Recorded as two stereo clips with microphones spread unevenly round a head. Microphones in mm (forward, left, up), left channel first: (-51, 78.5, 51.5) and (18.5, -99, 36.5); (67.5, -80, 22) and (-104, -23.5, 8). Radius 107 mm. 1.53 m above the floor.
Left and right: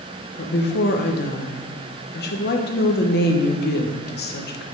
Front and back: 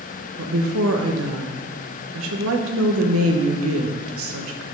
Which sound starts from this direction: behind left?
A woman speaking, at 0.4 s.